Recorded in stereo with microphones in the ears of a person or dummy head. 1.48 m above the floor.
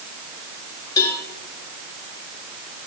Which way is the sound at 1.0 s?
25° left (ahead or behind).